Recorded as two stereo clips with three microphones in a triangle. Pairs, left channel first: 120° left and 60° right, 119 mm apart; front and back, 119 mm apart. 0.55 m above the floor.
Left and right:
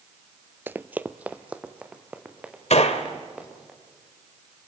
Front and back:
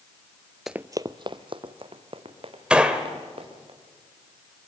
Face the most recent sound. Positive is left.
turn(degrees=100)